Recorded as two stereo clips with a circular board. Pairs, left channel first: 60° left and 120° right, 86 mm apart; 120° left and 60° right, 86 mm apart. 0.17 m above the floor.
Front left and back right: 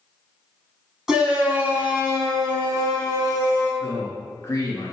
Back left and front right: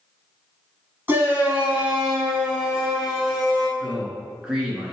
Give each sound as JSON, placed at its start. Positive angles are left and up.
{"t": 1.1, "sound": "a shout", "azimuth_deg": -45, "distance_m": 1.0}
{"t": 3.8, "sound": "a man speaking", "azimuth_deg": 15, "distance_m": 1.9}